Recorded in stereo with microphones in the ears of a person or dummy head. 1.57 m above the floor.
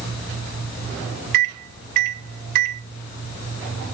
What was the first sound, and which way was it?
A microwave, 55° right (ahead or behind).